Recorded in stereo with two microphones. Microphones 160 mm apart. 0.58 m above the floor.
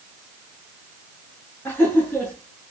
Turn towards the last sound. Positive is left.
turn(degrees=10)  # may be behind; listen again after turning